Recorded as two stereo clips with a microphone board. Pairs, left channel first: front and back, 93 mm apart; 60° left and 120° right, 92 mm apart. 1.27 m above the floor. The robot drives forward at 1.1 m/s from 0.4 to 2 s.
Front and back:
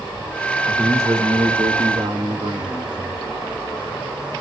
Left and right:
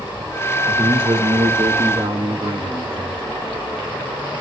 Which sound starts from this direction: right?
A man speaking, at 0.7 s.